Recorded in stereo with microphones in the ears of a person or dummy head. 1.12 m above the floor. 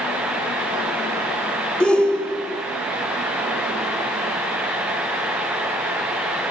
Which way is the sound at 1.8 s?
5° left (ahead or behind).